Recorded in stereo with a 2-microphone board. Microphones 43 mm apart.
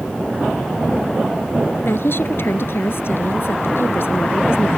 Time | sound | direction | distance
1.8 | a woman speaking | 65° left (ahead or behind) | ?